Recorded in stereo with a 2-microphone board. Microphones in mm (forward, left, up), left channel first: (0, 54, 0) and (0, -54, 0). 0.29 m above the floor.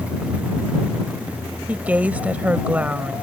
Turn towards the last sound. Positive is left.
turn(degrees=-15)  # may be behind; listen again after turning